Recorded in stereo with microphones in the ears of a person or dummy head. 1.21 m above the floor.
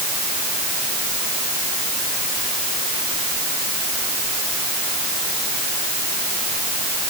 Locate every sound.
Only background noise.